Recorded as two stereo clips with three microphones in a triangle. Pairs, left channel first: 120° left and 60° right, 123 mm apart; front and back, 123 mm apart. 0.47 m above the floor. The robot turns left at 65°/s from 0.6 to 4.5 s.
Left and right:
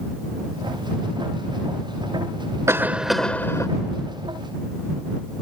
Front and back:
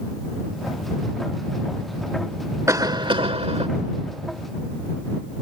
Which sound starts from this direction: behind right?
A cough, at 2.7 s.